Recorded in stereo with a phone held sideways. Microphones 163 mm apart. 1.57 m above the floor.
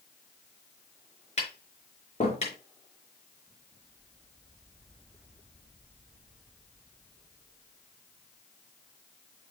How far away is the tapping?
About 5 m.